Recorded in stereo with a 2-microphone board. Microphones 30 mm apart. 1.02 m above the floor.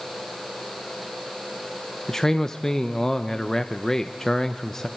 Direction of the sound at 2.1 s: 15° left (ahead or behind).